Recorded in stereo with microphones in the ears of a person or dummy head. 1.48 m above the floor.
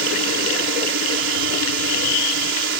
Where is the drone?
60° right (ahead or behind).